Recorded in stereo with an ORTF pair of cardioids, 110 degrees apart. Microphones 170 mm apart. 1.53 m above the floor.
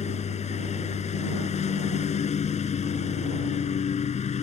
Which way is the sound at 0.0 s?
40° left.